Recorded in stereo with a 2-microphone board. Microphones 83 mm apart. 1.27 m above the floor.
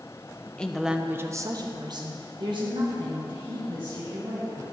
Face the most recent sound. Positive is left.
turn(degrees=-85)